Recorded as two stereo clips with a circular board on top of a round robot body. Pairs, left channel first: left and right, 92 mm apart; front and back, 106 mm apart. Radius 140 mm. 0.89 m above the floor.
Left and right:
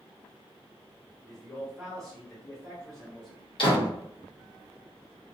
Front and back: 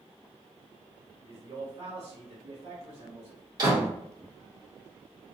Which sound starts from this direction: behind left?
A door slam, at 3.6 s.